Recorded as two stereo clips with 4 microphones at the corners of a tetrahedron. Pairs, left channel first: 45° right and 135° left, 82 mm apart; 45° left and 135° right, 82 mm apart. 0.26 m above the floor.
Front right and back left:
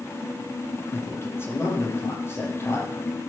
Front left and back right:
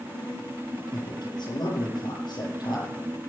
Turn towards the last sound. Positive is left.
turn(degrees=15)